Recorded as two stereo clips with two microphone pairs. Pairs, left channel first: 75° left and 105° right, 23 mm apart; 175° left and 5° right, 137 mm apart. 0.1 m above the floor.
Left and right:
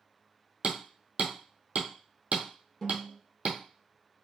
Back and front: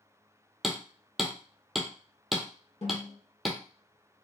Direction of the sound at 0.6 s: 90° right.